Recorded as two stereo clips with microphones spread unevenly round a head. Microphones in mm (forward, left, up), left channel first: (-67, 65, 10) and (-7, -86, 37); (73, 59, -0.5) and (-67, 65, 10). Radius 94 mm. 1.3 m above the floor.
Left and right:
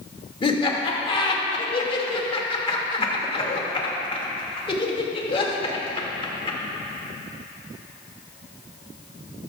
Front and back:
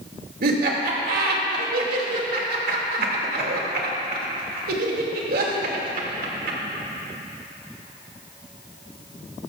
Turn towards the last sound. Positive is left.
turn(degrees=170)